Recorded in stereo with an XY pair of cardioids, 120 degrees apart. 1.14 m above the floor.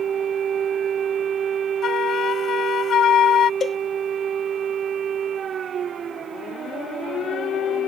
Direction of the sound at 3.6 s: 30° left.